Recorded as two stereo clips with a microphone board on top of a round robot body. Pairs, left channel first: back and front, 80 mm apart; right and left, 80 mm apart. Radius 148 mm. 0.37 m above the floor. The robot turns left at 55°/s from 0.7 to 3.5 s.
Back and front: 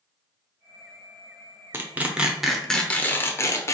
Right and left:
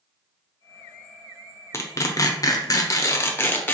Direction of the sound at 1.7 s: 50° right.